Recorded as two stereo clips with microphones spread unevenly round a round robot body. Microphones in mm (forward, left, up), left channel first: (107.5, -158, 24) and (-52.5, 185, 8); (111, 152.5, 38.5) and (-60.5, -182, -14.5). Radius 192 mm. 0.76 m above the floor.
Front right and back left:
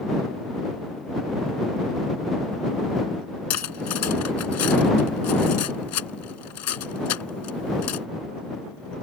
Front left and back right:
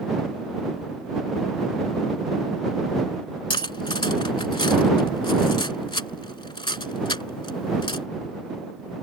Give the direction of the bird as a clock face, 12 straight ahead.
I don't hear a bird.